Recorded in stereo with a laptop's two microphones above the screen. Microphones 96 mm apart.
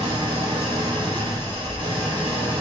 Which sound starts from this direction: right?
An engine running, at 0.0 s.